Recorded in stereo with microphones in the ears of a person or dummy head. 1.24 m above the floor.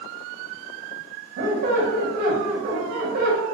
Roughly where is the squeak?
Right.